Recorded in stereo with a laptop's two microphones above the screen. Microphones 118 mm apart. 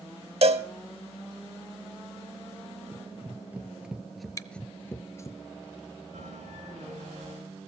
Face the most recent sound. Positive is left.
turn(degrees=-90)